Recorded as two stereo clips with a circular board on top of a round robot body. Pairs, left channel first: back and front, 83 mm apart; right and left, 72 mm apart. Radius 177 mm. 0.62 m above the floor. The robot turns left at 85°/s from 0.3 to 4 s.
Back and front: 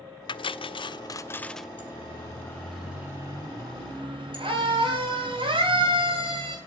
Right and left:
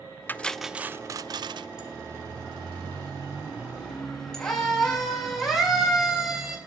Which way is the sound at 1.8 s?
170° left.